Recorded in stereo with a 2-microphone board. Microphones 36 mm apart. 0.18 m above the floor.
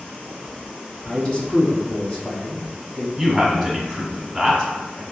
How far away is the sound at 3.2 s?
About 1.2 m.